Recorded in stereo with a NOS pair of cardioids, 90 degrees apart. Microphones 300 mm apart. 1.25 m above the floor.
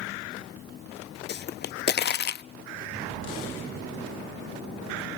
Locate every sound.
1.3 s a pop: 35° left, 0.5 m